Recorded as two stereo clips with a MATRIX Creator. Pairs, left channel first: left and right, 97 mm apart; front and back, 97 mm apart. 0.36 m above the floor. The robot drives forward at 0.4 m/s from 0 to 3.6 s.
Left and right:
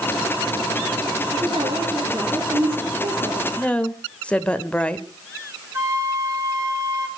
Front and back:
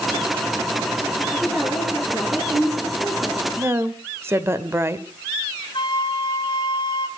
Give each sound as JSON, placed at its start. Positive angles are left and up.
{"t": 1.3, "sound": "a woman speaking", "azimuth_deg": -110, "distance_m": 6.5}
{"t": 3.6, "sound": "a woman speaking", "azimuth_deg": 150, "distance_m": 1.1}
{"t": 5.7, "sound": "a flute", "azimuth_deg": -35, "distance_m": 3.0}